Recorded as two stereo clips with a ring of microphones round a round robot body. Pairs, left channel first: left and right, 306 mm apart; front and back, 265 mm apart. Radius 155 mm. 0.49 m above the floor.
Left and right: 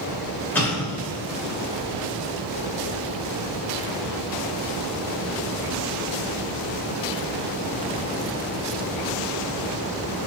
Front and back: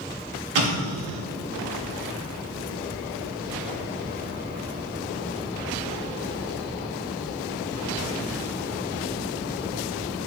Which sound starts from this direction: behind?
An explosion, at 0.6 s.